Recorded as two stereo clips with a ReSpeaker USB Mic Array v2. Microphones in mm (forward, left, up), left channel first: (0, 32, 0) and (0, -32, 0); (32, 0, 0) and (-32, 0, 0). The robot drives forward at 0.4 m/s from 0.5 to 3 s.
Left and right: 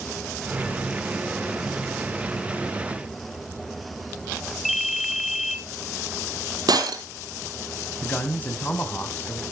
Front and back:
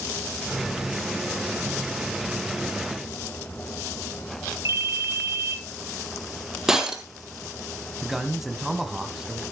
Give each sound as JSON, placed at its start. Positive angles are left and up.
{"t": 4.7, "sound": "a ringtone", "azimuth_deg": 180, "distance_m": 0.9}
{"t": 6.7, "sound": "breaking glass", "azimuth_deg": -100, "distance_m": 1.8}
{"t": 8.0, "sound": "a man speaking", "azimuth_deg": 100, "distance_m": 1.4}